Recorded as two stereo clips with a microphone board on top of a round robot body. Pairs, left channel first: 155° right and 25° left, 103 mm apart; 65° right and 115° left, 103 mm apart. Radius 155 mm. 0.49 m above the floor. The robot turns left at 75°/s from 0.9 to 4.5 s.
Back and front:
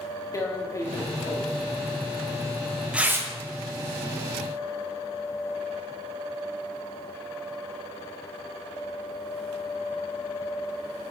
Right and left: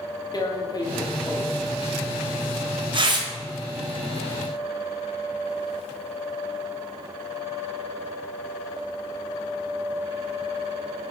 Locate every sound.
0.3 s tearing paper: 105° right, 1.7 m; by 3.3 s 75° left, 1.7 m